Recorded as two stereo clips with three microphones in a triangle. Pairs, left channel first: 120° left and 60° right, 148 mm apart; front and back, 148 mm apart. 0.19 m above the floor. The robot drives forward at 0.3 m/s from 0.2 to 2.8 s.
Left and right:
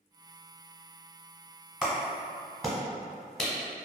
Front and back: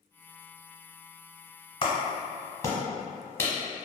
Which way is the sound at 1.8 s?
20° left.